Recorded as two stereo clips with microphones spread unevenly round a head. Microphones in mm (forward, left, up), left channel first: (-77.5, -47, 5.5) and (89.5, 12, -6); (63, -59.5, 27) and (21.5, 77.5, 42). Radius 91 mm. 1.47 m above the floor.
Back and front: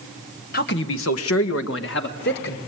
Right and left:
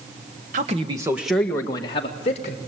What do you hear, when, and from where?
0.5 s a man speaking: 155° left, 1.6 m; by 2.6 s 125° right, 2.5 m